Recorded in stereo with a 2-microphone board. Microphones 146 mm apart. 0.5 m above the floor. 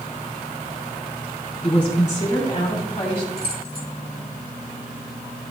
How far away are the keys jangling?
About 2 m.